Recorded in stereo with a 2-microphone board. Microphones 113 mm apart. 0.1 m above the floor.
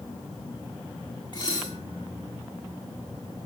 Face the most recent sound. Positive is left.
turn(degrees=45)  # may be behind; listen again after turning